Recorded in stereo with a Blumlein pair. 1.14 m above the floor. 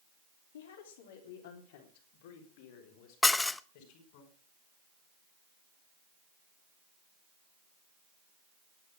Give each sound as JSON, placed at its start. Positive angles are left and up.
{"t": 0.5, "sound": "a woman speaking", "azimuth_deg": 60, "distance_m": 3.0}
{"t": 3.2, "sound": "dishes clattering", "azimuth_deg": 10, "distance_m": 0.6}